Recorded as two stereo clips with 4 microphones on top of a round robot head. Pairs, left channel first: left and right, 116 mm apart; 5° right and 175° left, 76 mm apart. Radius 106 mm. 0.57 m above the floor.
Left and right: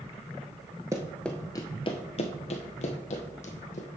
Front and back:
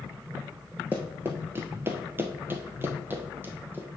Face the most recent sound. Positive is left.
turn(degrees=110)